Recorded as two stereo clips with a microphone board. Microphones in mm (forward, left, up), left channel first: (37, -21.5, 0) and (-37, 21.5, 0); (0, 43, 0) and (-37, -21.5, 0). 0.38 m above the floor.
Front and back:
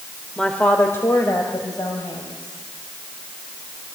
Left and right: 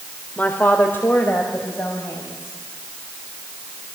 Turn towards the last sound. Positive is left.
turn(degrees=5)